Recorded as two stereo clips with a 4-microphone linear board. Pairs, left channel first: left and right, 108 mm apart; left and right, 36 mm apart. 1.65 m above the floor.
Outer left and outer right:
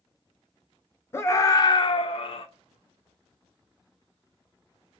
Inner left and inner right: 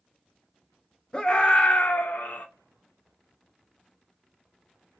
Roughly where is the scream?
Left.